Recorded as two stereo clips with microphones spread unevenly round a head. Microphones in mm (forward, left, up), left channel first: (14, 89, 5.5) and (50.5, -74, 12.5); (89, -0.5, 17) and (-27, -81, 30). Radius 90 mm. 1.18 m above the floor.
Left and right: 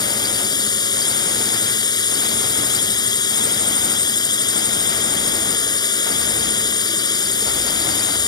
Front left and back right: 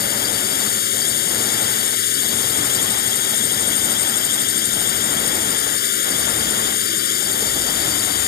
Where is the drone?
40° left.